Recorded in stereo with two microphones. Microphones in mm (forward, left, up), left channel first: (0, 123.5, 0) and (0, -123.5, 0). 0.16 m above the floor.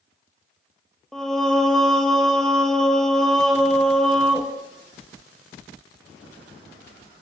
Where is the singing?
Centre (ahead or behind), 0.8 m.